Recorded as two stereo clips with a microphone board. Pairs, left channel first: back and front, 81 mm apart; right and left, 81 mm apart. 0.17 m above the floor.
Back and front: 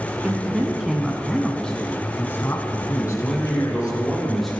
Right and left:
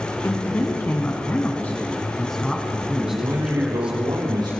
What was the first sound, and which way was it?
A man speaking, 65° right.